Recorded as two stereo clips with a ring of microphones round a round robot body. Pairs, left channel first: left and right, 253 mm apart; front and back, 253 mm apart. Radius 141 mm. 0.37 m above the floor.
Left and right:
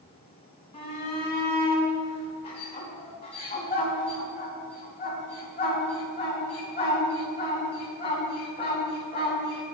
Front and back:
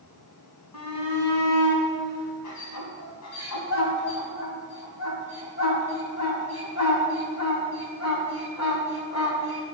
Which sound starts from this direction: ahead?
A shout, at 0.7 s.